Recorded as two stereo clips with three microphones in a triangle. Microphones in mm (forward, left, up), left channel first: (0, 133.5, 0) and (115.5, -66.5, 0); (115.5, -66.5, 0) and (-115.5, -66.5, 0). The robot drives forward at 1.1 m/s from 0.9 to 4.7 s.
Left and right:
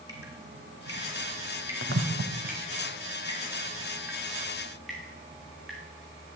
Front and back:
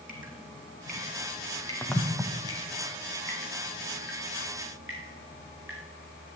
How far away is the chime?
No chime in this recording.